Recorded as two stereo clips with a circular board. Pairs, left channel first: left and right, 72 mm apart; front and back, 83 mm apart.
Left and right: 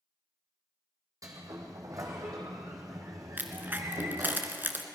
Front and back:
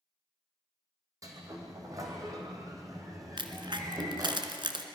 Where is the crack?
155° right, 1.5 m.